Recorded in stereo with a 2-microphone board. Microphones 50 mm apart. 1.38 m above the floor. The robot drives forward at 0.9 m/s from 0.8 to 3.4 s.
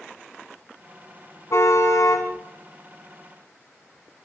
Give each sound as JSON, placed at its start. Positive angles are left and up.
{"t": 1.5, "sound": "a car horn", "side_deg": 70, "distance_m": 5.0}